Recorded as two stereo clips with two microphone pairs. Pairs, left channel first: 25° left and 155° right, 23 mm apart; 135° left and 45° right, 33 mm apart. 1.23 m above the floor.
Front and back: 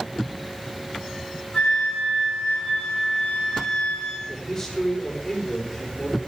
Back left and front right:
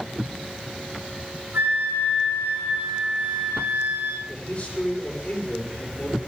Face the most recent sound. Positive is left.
turn(degrees=80)